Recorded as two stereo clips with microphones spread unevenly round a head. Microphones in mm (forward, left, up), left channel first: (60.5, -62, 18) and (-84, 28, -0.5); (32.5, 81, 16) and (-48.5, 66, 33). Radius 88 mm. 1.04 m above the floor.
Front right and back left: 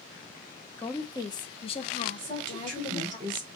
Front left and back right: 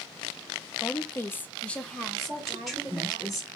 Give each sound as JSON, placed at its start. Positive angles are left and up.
{"t": 0.8, "sound": "a woman speaking", "azimuth_deg": 50, "distance_m": 0.8}
{"t": 2.2, "sound": "a woman speaking", "azimuth_deg": 100, "distance_m": 3.0}